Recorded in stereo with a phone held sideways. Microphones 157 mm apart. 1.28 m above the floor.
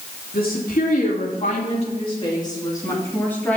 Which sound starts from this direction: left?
A woman speaking, at 0.3 s.